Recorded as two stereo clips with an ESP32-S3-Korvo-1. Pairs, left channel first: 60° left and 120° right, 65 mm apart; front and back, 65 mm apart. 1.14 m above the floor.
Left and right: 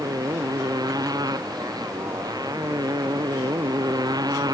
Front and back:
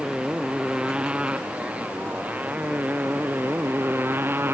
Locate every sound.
0.0 s a motorcycle: 105° right; by 4.5 s 125° right